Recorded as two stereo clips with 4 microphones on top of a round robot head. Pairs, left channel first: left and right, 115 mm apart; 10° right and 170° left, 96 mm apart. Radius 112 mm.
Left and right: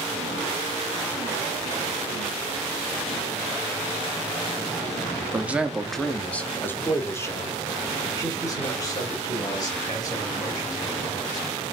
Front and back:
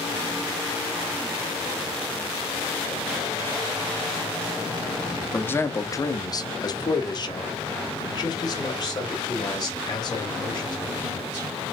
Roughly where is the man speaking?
Ahead right.